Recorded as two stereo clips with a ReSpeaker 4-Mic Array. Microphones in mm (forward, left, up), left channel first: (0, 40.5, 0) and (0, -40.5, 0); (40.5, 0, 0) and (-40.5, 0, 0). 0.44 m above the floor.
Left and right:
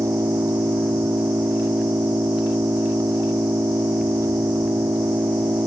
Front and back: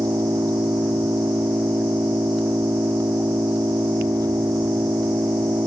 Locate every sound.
0.0 s an engine running: 140° right